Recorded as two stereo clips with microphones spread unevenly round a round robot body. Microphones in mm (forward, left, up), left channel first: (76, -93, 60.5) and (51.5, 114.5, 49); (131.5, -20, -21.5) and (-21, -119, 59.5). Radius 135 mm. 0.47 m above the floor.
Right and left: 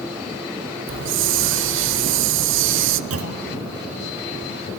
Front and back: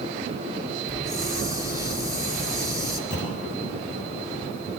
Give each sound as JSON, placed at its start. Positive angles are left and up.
{"t": 0.9, "sound": "a hiss", "azimuth_deg": 130, "distance_m": 0.5}
{"t": 3.1, "sound": "a clunk", "azimuth_deg": 95, "distance_m": 2.0}